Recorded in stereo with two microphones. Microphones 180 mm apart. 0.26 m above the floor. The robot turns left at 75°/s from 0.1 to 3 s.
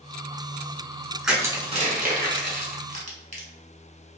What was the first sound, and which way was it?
Crushing, centre (ahead or behind).